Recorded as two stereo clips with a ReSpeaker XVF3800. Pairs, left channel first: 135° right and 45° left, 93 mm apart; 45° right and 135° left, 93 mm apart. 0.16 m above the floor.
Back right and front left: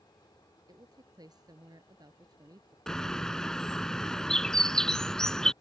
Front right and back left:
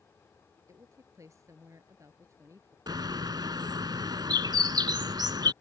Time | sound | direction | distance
0.7 | a woman speaking | 85° left | ?
2.9 | a bird | 145° left | ?